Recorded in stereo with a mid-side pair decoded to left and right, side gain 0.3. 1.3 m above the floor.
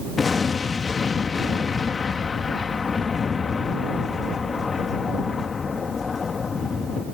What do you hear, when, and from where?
0.2 s an explosion: 55° left